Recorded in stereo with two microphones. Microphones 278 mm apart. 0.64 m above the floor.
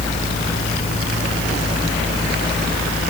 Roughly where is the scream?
I don't hear a scream.